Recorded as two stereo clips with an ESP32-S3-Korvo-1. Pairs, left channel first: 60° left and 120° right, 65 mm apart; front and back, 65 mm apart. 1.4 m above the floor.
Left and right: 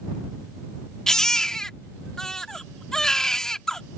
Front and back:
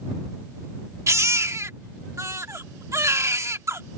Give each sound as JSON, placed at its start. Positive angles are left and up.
{"t": 1.1, "sound": "a baby crying", "azimuth_deg": 140}